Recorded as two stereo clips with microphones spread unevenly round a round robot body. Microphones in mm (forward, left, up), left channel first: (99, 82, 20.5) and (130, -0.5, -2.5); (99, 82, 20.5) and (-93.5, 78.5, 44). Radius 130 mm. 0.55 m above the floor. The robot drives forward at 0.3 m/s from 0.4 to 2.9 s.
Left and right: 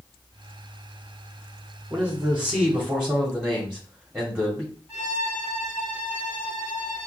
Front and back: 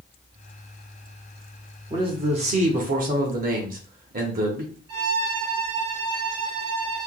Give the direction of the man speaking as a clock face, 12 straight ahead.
4 o'clock.